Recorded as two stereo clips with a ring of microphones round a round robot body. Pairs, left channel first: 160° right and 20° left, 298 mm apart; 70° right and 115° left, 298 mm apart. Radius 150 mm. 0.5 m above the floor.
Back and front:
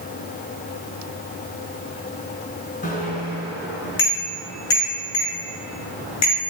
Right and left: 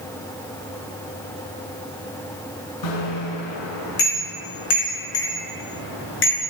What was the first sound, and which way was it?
A bicycle bell, 95° right.